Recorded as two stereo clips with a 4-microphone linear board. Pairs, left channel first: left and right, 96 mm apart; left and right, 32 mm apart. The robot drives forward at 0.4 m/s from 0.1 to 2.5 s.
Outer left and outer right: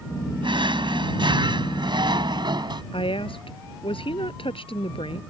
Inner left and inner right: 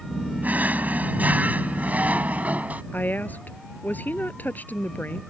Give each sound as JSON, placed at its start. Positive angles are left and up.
{"t": 0.4, "sound": "a drawer", "side_deg": -70}
{"t": 2.9, "sound": "a woman speaking", "side_deg": 90}